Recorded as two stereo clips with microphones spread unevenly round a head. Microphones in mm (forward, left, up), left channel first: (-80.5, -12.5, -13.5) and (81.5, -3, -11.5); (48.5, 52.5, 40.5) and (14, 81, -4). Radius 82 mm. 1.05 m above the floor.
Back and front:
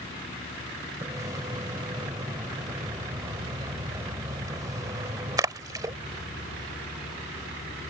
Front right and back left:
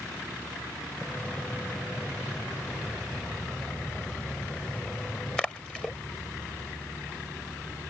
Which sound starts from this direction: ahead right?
A splash, at 1.0 s.